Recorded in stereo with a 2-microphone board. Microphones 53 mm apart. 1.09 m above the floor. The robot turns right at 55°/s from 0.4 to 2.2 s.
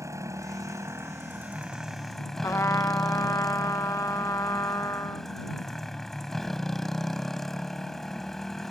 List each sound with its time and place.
0.0 s a motorcycle: 90° right; by 8.7 s 10° left
2.4 s a trumpet: 75° left (ahead or behind)